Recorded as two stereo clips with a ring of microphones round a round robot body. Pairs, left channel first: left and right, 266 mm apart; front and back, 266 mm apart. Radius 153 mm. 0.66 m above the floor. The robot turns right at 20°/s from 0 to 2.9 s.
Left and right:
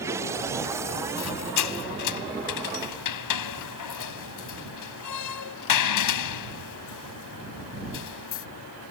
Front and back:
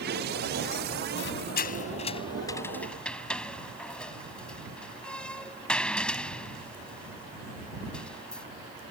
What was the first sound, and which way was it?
A squeak, 50° left.